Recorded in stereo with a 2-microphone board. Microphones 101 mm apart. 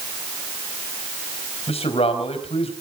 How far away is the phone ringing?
I don't hear a phone ringing.